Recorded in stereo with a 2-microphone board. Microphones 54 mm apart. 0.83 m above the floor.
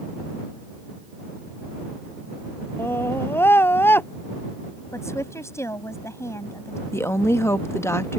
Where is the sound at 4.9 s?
60° left (ahead or behind).